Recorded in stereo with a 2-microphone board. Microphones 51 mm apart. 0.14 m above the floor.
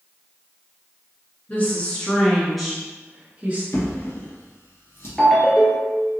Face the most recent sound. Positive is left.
turn(degrees=0)  # may be behind; listen again after turning